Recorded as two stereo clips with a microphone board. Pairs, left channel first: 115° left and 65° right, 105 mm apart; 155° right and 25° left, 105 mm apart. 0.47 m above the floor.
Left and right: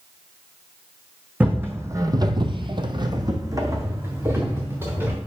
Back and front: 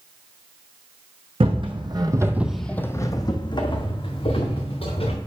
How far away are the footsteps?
About 1.2 m.